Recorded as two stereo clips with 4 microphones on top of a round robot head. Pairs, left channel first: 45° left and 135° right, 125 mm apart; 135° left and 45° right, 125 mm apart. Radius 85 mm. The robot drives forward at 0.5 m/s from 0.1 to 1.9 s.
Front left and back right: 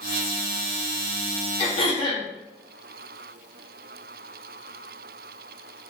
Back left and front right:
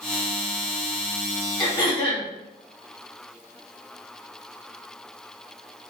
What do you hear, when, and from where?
1.6 s throat clearing: 80° left, 2 m; by 2.3 s 85° left, 2.0 m